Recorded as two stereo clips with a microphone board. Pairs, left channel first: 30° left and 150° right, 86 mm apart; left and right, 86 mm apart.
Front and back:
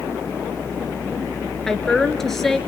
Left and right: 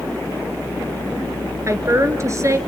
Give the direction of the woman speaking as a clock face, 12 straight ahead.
2 o'clock.